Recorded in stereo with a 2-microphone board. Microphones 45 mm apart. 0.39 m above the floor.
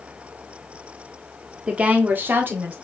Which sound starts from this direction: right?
A woman speaking, at 1.7 s.